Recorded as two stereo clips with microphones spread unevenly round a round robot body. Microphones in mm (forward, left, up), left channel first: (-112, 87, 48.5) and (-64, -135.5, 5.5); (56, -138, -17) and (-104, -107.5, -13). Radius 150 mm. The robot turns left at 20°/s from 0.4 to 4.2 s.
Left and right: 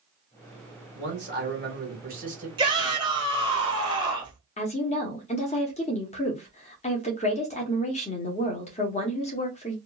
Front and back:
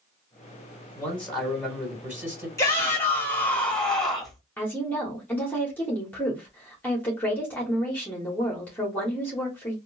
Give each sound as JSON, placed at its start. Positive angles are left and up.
{"t": 0.9, "sound": "a man speaking", "azimuth_deg": -90, "distance_m": 2.0}
{"t": 2.6, "sound": "a shout", "azimuth_deg": -65, "distance_m": 1.4}
{"t": 4.6, "sound": "a woman speaking", "azimuth_deg": 55, "distance_m": 0.9}